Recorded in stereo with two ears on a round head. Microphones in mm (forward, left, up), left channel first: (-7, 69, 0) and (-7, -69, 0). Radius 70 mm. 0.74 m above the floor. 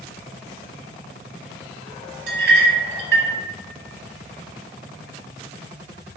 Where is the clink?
75° right (ahead or behind), 0.6 m.